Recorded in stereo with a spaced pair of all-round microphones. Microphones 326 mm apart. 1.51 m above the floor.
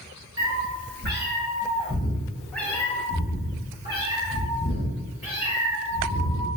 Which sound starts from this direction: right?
A cat meowing, at 0.4 s.